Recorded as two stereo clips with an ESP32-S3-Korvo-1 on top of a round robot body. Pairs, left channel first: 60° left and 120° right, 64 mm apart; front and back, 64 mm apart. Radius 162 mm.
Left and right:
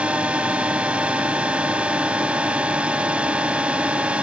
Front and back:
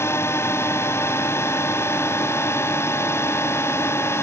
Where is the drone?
50° right.